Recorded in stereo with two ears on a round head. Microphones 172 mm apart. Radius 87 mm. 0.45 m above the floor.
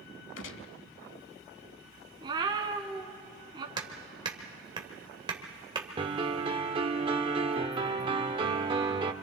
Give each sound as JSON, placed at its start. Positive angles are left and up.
{"t": 0.4, "sound": "a gunshot", "side_deg": 70, "distance_m": 0.8}
{"t": 2.2, "sound": "a cat meowing", "side_deg": -25, "distance_m": 1.2}
{"t": 3.8, "sound": "hammering", "side_deg": -25, "distance_m": 1.7}
{"t": 6.0, "sound": "a piano", "side_deg": -25, "distance_m": 0.8}